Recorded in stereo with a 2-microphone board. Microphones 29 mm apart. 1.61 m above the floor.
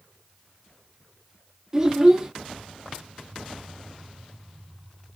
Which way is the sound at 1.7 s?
25° right (ahead or behind).